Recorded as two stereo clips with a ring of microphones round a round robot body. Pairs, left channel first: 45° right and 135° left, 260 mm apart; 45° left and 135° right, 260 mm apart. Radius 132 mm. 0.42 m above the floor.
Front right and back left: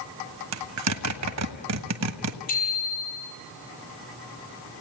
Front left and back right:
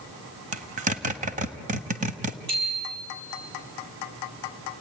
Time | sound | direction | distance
0.5 | a zipper | 165° left | 1.4 m
2.5 | a bicycle bell | 105° right | 8 m